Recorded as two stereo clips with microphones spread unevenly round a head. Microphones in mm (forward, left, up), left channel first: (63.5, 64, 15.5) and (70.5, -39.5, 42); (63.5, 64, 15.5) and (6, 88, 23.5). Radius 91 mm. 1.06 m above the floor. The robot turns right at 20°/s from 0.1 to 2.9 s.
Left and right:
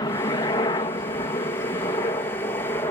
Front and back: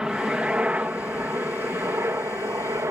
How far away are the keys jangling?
No keys jangling in this recording.